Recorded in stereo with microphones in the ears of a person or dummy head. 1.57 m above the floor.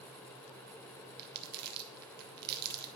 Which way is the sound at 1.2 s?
50° right (ahead or behind).